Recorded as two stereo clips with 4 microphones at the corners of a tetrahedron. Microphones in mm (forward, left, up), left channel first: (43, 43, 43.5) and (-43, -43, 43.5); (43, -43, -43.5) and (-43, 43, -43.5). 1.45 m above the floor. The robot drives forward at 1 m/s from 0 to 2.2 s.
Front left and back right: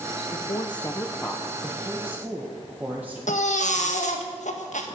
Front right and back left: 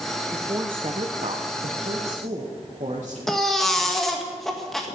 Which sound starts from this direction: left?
A woman speaking, at 0.3 s.